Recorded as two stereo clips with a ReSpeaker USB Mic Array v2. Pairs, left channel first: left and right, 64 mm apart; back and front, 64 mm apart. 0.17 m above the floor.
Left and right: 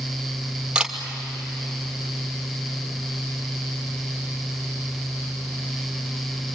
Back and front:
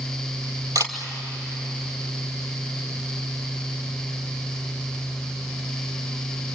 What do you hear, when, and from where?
0.8 s a camera shutter: 15° right, 2.5 m